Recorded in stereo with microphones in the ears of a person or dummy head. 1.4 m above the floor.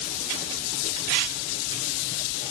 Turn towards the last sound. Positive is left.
No sound to turn to.